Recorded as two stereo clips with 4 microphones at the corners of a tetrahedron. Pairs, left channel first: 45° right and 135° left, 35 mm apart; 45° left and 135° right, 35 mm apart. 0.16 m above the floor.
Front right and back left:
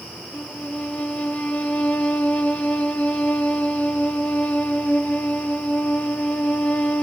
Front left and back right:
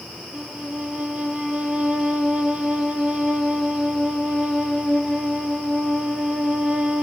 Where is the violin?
85° right, 1.0 m.